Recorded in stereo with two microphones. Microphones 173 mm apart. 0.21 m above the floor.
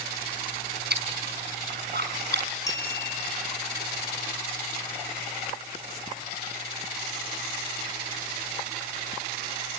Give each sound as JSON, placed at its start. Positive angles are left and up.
{"t": 0.9, "sound": "chewing", "side_deg": -70, "distance_m": 4.5}
{"t": 2.7, "sound": "a clink", "side_deg": 20, "distance_m": 2.5}